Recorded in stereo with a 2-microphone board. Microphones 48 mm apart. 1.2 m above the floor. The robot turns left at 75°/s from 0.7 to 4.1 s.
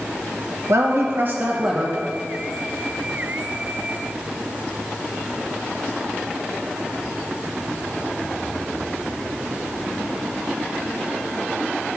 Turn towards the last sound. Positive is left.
turn(degrees=15)